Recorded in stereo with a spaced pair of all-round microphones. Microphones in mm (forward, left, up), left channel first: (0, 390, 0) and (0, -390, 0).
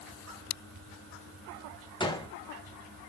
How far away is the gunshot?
About 0.7 m.